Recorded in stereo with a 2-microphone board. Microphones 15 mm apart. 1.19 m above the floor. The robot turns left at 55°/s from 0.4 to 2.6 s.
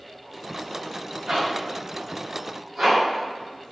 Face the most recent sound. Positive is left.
turn(degrees=-45)  # may be behind; listen again after turning